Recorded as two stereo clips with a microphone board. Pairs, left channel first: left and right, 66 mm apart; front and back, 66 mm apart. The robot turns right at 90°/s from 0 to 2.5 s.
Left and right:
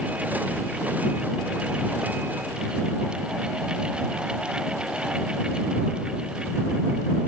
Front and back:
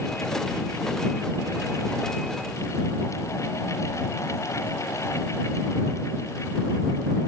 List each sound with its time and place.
Only background noise.